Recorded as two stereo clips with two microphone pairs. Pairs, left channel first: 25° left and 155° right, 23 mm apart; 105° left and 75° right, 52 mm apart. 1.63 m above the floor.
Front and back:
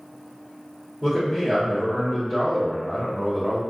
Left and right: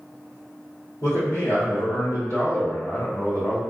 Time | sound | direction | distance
1.0 | a man speaking | 110° left | 1.4 m